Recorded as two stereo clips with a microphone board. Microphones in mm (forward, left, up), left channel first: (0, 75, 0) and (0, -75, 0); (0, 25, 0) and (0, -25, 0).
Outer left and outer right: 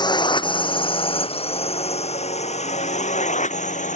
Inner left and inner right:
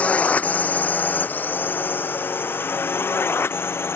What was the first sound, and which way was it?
A drone, 30° left (ahead or behind).